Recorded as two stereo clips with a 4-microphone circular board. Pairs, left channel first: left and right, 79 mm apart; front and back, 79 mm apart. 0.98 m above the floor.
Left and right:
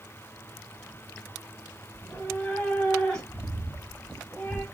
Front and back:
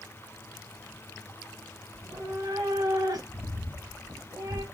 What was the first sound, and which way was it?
A cat meowing, 170° left.